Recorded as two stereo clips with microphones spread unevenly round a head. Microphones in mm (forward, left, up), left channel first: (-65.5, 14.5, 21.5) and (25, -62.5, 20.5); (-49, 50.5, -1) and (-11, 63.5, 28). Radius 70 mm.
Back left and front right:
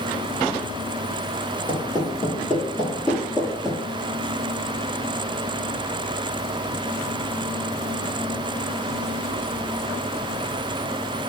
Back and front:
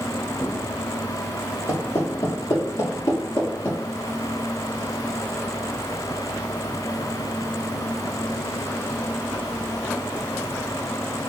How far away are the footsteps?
About 1.9 m.